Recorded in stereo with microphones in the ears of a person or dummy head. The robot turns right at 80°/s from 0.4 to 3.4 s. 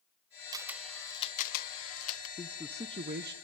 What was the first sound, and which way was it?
A camera shutter, 25° right (ahead or behind).